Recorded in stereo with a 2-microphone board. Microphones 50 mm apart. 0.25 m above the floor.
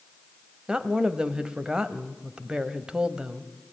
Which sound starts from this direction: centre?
A woman speaking, at 0.7 s.